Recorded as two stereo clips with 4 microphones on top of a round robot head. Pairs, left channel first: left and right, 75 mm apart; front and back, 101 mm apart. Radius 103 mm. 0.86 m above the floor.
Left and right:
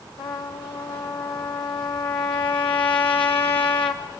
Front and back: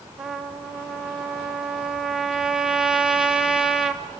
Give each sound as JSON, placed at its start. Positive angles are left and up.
{"t": 0.2, "sound": "a trumpet", "azimuth_deg": 95, "distance_m": 1.7}